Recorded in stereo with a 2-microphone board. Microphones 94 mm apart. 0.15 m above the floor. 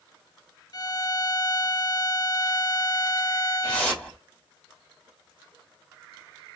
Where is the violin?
40° left (ahead or behind), 0.7 m.